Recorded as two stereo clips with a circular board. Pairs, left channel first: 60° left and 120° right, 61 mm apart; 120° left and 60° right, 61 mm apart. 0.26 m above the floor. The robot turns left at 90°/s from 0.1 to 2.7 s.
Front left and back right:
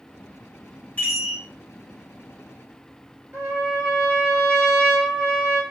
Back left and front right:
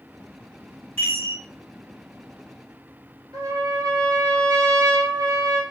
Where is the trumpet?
60° right, 1.7 m.